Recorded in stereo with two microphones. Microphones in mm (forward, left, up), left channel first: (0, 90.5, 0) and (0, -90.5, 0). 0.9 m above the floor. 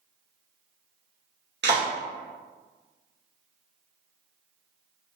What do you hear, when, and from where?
1.6 s a clap: 75° right (ahead or behind), 1.1 m